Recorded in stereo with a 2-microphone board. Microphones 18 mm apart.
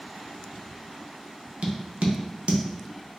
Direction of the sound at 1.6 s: 70° right (ahead or behind).